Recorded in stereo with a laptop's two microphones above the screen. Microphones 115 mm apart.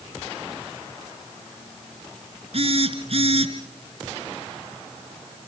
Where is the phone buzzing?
55° right (ahead or behind), 3.5 m.